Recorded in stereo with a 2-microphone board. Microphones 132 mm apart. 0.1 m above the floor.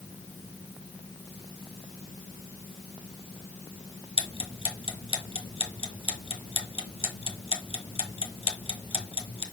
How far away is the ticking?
About 1.3 m.